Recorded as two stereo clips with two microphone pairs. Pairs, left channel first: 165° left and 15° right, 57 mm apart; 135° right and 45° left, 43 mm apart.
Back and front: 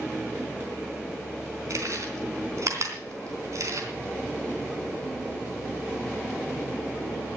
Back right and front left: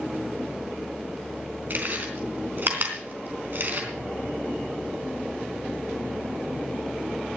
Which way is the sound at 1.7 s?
5° left.